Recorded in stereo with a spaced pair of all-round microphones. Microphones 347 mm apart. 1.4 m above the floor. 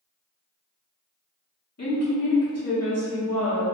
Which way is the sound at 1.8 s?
45° left (ahead or behind).